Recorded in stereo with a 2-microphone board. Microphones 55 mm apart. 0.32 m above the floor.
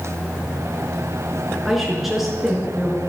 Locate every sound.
1.6 s a woman speaking: centre (ahead or behind), 5 m